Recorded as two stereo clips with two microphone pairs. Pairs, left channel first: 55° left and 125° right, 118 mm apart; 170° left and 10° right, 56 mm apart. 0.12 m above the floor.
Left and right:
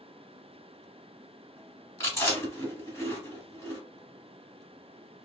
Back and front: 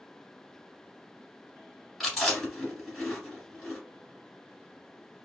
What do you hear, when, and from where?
2.0 s chewing: 80° left, 1.8 m